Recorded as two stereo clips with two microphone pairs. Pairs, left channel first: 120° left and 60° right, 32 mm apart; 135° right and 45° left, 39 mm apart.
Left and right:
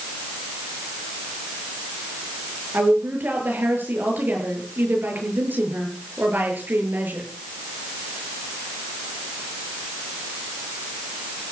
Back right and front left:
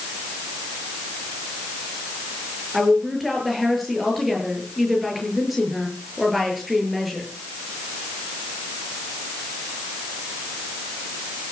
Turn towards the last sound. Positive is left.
turn(degrees=-40)